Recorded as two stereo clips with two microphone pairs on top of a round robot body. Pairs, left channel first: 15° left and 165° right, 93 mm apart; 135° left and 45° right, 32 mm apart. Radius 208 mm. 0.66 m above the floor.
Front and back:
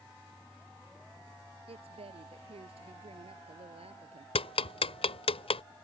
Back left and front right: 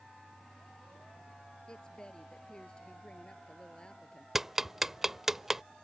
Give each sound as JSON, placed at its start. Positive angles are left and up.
{"t": 1.7, "sound": "a woman speaking", "azimuth_deg": -160}
{"t": 4.3, "sound": "ticking", "azimuth_deg": 35}